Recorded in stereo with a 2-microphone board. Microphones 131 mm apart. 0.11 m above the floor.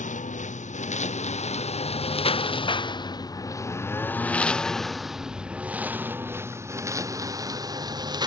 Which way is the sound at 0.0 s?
70° left (ahead or behind).